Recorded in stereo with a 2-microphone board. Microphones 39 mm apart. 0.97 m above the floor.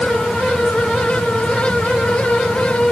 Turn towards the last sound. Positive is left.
No sound to turn to.